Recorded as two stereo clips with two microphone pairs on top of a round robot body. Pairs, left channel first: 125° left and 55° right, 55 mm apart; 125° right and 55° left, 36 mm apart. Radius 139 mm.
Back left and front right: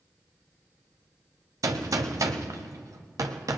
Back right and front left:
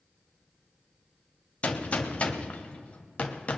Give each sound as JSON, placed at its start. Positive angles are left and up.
{"t": 1.6, "sound": "a gunshot", "azimuth_deg": -75, "distance_m": 1.0}